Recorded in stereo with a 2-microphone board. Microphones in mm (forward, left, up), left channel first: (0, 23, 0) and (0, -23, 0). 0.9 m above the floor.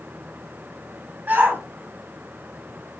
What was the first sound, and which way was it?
A shout, 40° right (ahead or behind).